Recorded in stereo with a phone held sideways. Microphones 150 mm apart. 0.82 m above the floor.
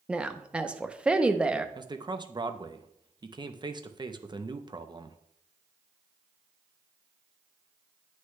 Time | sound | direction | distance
0.1 | a woman speaking | 5° right (ahead or behind) | 0.6 m
1.8 | a man speaking | 30° right (ahead or behind) | 0.5 m